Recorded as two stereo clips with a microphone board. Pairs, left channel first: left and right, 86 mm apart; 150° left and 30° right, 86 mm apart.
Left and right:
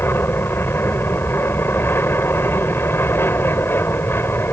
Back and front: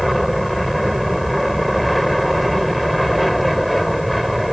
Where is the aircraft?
60° left.